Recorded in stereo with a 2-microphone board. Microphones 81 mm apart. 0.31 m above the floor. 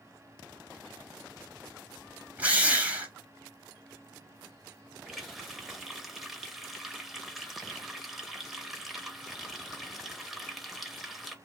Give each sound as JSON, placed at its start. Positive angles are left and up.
{"t": 2.4, "sound": "a drill", "side_deg": -15, "distance_m": 0.8}
{"t": 5.1, "sound": "a running tap", "side_deg": 0, "distance_m": 0.6}